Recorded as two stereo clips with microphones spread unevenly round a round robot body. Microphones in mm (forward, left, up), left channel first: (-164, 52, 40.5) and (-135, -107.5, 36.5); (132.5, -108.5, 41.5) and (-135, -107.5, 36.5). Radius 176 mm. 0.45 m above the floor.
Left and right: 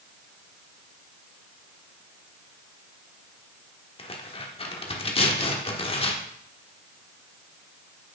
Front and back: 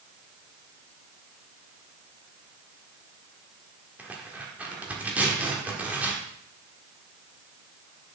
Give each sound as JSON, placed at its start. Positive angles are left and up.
{"t": 4.0, "sound": "tearing paper", "azimuth_deg": 100, "distance_m": 1.4}